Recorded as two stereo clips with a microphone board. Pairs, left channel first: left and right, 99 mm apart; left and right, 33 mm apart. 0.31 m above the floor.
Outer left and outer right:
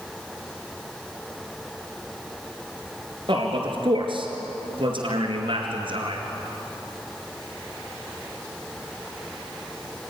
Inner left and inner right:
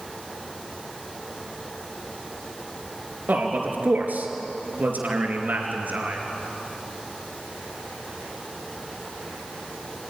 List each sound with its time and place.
3.3 s a man speaking: 60° right (ahead or behind), 4 m